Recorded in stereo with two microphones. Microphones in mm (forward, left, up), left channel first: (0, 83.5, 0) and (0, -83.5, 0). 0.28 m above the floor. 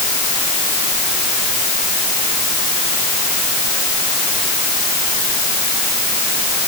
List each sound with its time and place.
Only background noise.